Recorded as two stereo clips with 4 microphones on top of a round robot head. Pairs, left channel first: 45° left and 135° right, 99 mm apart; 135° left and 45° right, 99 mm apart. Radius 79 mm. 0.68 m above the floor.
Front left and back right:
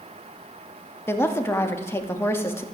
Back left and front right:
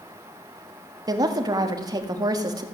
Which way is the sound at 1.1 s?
15° right.